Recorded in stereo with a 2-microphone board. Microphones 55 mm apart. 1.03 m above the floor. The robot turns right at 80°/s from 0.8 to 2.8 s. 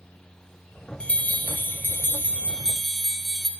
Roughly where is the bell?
Ahead left.